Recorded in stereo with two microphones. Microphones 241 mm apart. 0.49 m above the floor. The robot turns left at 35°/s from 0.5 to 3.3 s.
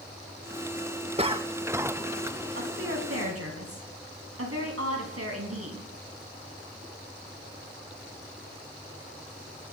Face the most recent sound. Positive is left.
turn(degrees=-75)  # may be behind; listen again after turning